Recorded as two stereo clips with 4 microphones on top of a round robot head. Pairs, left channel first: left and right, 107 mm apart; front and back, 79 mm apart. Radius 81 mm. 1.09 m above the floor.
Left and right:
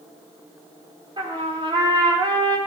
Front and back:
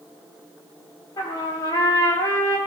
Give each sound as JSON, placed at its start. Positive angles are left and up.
{"t": 1.2, "sound": "a trumpet", "azimuth_deg": -50, "distance_m": 5.5}